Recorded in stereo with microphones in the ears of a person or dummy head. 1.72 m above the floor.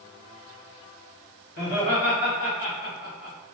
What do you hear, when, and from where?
1.6 s laughter: 55° left (ahead or behind), 1.6 m; by 3.4 s 75° left (ahead or behind), 1.6 m